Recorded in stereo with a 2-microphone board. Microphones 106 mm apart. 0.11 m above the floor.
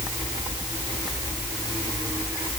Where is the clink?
I don't hear a clink.